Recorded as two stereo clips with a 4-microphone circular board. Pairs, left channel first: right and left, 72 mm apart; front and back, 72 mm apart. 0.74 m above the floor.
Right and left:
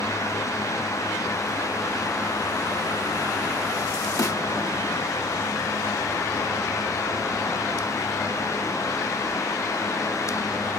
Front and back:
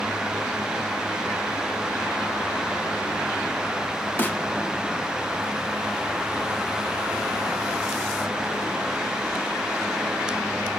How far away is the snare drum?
About 1.0 m.